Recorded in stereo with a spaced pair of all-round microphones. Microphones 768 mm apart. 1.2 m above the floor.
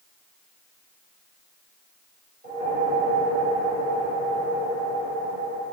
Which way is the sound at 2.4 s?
70° right (ahead or behind).